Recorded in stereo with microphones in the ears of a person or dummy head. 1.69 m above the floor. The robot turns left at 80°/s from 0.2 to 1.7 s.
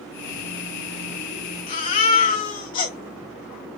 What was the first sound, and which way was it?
A baby crying, 35° left (ahead or behind).